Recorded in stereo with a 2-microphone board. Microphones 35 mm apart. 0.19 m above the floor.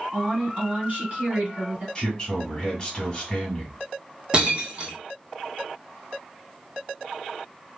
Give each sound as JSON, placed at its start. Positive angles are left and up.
{"t": 0.1, "sound": "a woman speaking", "side_deg": -40, "distance_m": 1.6}
{"t": 1.9, "sound": "a man speaking", "side_deg": 20, "distance_m": 1.1}
{"t": 4.3, "sound": "breaking glass", "side_deg": -25, "distance_m": 0.7}